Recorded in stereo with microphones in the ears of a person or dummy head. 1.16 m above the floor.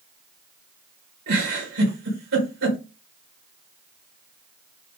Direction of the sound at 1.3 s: 50° right (ahead or behind).